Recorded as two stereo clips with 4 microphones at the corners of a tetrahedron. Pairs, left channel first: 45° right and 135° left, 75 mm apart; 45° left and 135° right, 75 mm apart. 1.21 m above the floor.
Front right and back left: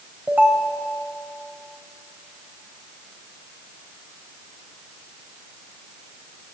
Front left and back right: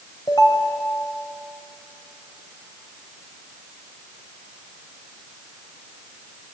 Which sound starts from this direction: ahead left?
A ringtone, at 0.3 s.